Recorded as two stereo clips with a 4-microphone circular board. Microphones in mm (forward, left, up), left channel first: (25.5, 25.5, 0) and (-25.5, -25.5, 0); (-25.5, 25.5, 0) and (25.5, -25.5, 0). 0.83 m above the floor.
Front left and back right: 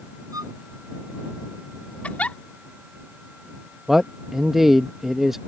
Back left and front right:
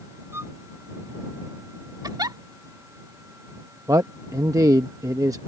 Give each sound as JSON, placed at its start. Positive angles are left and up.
{"t": 0.3, "sound": "a violin", "azimuth_deg": -100}
{"t": 2.0, "sound": "a giggle", "azimuth_deg": -25}
{"t": 3.9, "sound": "a man speaking", "azimuth_deg": -50}